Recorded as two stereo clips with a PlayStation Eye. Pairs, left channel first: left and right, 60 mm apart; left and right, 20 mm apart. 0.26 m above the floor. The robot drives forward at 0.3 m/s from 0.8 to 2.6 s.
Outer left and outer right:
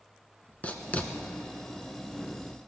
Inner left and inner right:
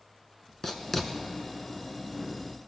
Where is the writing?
25° left (ahead or behind), 1.0 m.